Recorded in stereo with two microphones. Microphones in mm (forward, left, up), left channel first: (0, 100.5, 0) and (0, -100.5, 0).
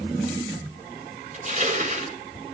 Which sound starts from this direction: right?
Crushing, at 1.3 s.